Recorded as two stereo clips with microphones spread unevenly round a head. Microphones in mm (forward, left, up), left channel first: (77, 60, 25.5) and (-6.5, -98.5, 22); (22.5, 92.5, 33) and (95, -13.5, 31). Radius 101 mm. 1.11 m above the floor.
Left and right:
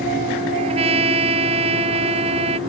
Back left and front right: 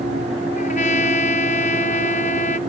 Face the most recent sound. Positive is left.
turn(degrees=180)